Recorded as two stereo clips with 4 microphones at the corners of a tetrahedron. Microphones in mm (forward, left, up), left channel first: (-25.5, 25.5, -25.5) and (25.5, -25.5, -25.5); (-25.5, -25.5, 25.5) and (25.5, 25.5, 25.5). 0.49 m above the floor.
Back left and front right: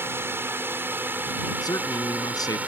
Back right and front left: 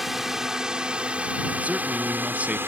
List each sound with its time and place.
0.0 s a drone: 40° right; by 2.7 s 10° left
1.6 s a man speaking: 115° left